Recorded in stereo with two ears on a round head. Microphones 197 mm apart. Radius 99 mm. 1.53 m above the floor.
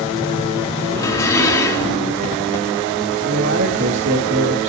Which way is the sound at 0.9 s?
15° left (ahead or behind).